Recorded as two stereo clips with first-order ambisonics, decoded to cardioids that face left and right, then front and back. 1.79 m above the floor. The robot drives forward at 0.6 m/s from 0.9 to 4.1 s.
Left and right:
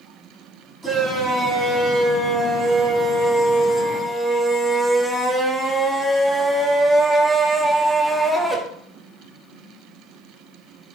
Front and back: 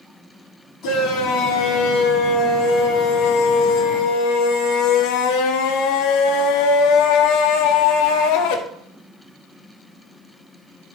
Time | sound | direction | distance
0.8 | a shout | straight ahead | 4 m